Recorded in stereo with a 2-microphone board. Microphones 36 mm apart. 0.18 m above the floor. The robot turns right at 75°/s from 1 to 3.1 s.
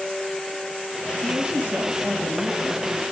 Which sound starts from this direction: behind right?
A man speaking, at 1.2 s.